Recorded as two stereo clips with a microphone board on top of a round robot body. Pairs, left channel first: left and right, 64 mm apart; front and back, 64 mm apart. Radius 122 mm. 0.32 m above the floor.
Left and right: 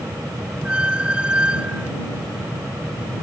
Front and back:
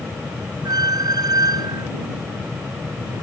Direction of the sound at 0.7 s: 165° right.